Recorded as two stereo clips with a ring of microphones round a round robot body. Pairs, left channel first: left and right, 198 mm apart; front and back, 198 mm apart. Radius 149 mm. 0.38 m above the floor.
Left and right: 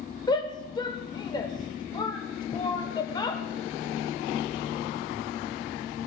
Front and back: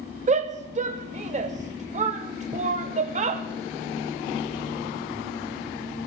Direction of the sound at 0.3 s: 150° left.